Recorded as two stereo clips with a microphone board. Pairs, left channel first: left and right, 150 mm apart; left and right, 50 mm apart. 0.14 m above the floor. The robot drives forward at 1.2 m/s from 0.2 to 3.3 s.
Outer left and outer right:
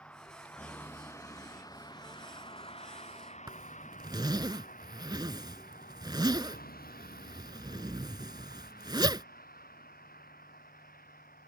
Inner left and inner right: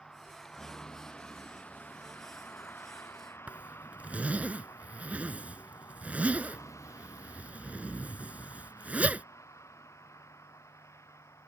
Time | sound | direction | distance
0.0 | a vehicle | 10° left (ahead or behind) | ?
3.5 | a zipper | 30° right (ahead or behind) | ?